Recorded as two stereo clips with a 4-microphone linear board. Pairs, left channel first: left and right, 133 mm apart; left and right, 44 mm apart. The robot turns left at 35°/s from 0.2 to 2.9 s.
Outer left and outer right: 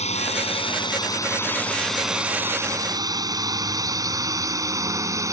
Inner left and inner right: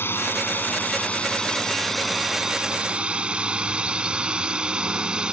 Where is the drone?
50° left (ahead or behind); by 5.3 s 25° right (ahead or behind).